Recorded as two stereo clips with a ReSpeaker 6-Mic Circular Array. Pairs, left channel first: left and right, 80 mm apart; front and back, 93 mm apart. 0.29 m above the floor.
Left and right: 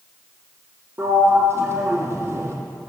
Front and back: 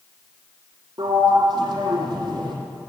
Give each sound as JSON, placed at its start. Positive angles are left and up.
{"t": 1.0, "sound": "a sliding door", "azimuth_deg": -145, "distance_m": 2.5}